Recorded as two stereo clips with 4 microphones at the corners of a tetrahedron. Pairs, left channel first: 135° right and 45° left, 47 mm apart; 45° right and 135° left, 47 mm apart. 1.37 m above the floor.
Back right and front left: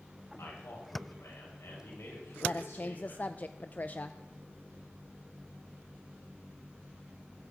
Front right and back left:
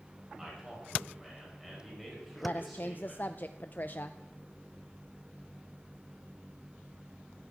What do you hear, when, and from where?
0.4 s a man speaking: 145° right, 7.5 m; by 3.2 s 130° right, 7 m
2.4 s a woman speaking: 85° right, 0.5 m